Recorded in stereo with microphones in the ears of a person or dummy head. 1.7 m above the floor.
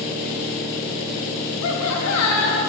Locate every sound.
1.6 s laughter: 80° left, 0.9 m